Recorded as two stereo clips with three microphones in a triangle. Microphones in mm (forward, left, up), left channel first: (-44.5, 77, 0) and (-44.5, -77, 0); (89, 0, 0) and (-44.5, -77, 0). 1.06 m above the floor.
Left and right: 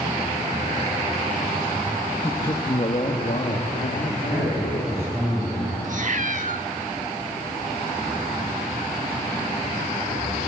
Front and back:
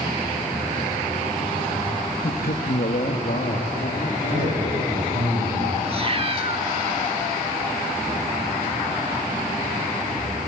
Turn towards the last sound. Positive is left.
turn(degrees=-105)